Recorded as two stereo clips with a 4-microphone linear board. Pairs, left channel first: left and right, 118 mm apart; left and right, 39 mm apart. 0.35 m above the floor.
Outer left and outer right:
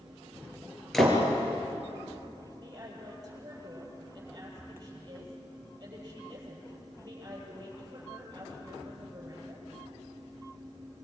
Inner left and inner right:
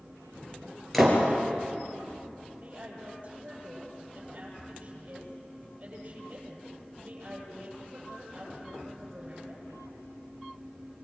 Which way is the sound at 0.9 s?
5° left (ahead or behind).